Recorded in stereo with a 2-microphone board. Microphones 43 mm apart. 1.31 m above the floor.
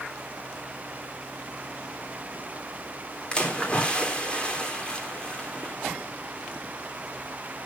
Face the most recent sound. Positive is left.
turn(degrees=25)  # may be behind; listen again after turning